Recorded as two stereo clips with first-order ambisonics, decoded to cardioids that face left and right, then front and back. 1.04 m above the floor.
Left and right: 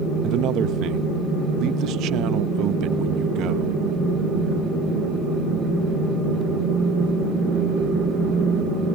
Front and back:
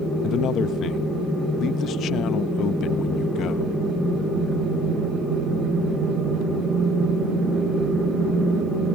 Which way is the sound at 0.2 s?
50° right.